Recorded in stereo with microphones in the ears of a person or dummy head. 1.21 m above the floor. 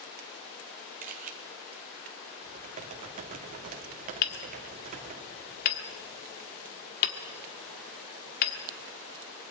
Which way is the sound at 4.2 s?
50° left (ahead or behind).